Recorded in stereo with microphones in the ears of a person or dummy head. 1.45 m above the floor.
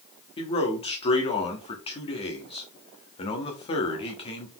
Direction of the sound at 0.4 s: 30° left (ahead or behind).